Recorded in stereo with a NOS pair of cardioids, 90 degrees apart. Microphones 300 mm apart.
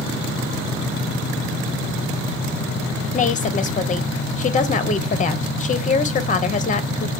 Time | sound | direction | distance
3.1 | a woman speaking | 25° left | 0.8 m